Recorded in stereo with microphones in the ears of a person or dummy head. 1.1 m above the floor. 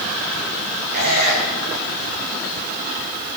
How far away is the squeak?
About 4 m.